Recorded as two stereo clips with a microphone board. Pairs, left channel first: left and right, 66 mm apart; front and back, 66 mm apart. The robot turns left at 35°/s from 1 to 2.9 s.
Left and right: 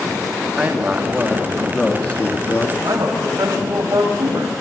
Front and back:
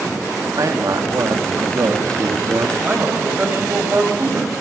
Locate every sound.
0.6 s a man speaking: 160° right, 1.7 m; by 2.7 s 140° left, 1.7 m
2.8 s a man speaking: 115° right, 6.5 m